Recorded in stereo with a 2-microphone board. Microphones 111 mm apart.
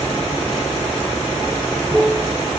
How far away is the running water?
About 7 m.